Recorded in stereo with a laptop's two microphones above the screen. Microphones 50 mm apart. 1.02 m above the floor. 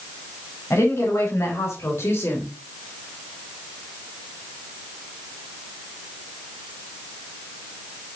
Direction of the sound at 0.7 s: 70° left (ahead or behind).